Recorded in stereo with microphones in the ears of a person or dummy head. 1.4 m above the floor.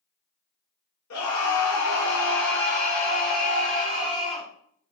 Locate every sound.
1.1 s a scream: 80° left, 1.9 m; by 4.5 s 30° left (ahead or behind), 3.5 m